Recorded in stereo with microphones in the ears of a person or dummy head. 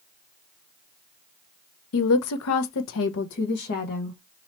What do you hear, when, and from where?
1.9 s a woman speaking: 70° left (ahead or behind), 0.8 m; by 4.2 s 45° left (ahead or behind), 1.2 m